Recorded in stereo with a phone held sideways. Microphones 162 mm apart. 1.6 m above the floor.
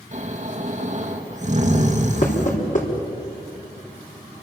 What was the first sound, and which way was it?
Snoring, 50° right (ahead or behind).